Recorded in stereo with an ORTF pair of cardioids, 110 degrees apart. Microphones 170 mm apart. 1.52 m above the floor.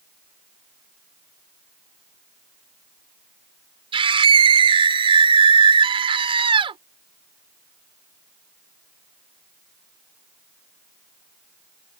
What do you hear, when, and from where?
3.9 s a scream: 30° right